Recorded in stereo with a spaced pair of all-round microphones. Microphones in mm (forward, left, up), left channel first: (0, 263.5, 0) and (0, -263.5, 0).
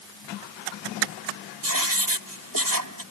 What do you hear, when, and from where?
1.6 s writing: 35° right (ahead or behind)